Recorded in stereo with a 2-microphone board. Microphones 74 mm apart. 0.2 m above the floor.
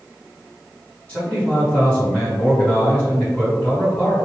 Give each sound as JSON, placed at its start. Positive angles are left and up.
{"t": 1.1, "sound": "a man speaking", "side_deg": 20, "distance_m": 1.9}